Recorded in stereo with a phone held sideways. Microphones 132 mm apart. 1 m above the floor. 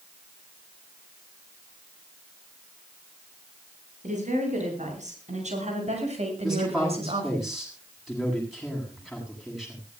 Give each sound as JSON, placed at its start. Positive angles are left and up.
{"t": 4.0, "sound": "a woman speaking", "side_deg": -70, "distance_m": 9.5}
{"t": 6.4, "sound": "a man speaking", "side_deg": -5, "distance_m": 8.0}